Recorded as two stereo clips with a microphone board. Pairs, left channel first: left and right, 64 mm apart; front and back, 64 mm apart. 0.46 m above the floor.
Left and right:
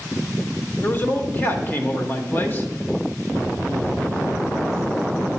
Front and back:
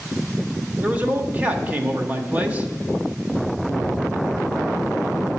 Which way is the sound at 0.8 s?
125° left.